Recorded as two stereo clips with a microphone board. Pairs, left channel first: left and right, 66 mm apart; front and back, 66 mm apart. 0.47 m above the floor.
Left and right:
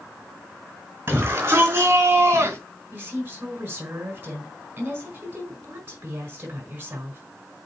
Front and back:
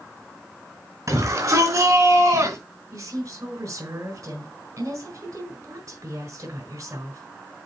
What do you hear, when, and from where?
1.1 s a shout: 150° right, 4.5 m; by 2.6 s 135° right, 4 m
2.9 s a woman speaking: 150° right, 4.5 m